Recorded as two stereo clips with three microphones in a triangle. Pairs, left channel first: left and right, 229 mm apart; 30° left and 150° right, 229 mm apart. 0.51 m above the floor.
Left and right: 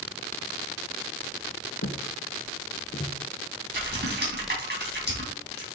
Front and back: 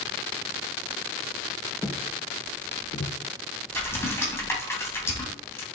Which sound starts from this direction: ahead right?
Typing on a keyboard, at 3.7 s.